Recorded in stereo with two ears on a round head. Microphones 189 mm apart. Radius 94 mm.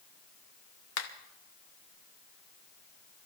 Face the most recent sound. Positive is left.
turn(degrees=70)  # may be behind; listen again after turning